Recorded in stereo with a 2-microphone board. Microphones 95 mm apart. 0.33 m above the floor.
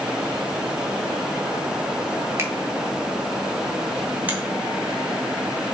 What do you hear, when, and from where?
2.4 s a finger snap: 30° right (ahead or behind), 1.2 m
4.3 s a finger snap: 15° right (ahead or behind), 2 m